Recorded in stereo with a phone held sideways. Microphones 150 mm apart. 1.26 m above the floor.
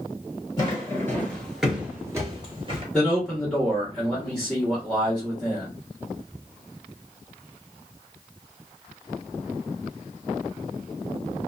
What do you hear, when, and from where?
0.6 s footsteps: 25° left (ahead or behind), 1.6 m; by 2.8 s 40° right (ahead or behind), 1.5 m
2.9 s a man speaking: 5° left (ahead or behind), 1.3 m